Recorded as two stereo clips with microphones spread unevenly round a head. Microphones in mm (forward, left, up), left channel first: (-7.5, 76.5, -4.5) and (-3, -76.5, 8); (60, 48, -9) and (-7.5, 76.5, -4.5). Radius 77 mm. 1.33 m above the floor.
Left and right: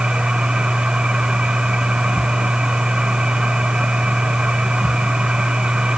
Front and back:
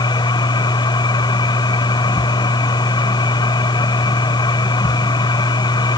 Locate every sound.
0.0 s a machine running: 5° right